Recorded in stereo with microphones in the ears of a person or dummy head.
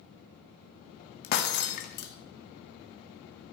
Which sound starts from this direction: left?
Breaking glass, at 1.2 s.